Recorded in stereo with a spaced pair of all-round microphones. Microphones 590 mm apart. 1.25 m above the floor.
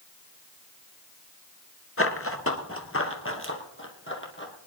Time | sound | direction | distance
2.0 | running footsteps | 25° left (ahead or behind) | 1.3 m